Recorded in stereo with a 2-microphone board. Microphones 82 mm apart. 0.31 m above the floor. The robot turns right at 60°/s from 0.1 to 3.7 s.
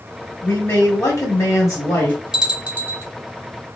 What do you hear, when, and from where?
0.4 s a man speaking: 40° left, 1.5 m; by 2.2 s 150° left, 1.5 m
2.3 s a bell: 165° right, 1.1 m; by 3.0 s 125° right, 1.1 m